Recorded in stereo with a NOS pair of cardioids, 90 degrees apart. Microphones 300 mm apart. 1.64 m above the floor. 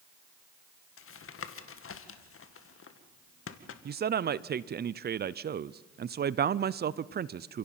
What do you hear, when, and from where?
1.0 s tapping: 45° left, 2 m
3.9 s a man speaking: 35° right, 0.6 m